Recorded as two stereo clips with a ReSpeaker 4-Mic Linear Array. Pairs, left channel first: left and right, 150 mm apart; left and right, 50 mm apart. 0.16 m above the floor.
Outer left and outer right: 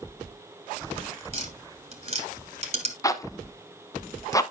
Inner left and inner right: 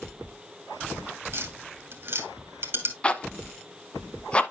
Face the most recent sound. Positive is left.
turn(degrees=20)  # may be behind; listen again after turning